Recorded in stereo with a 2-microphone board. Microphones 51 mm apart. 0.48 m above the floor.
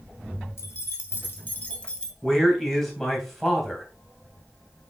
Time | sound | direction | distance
0.6 | keys jangling | 60° left (ahead or behind) | 1.7 m
2.2 | a man speaking | 5° left (ahead or behind) | 2.5 m